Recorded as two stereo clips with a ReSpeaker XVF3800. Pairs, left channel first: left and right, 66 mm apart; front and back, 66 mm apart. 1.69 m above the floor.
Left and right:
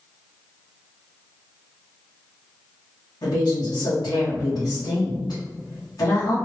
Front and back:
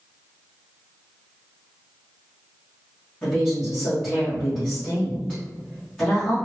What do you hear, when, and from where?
3.2 s a woman speaking: 70° left, 1.5 m